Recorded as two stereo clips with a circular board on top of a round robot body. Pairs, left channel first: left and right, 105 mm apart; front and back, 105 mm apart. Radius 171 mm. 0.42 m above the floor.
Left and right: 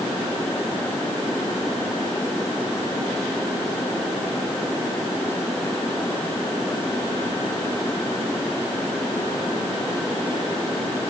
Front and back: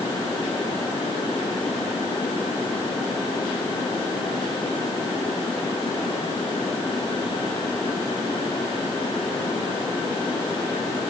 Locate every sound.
Only background noise.